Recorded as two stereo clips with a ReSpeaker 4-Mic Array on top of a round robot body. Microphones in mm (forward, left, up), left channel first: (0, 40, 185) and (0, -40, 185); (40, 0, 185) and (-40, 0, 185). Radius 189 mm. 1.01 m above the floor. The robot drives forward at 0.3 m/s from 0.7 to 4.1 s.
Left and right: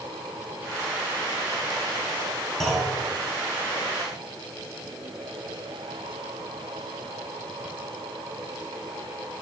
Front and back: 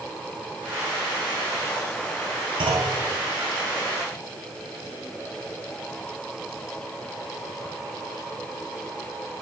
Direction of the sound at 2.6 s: 175° left.